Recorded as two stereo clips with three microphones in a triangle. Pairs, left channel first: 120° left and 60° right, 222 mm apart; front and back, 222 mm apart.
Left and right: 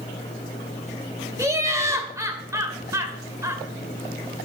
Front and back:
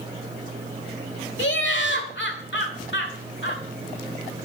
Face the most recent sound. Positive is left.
turn(degrees=15)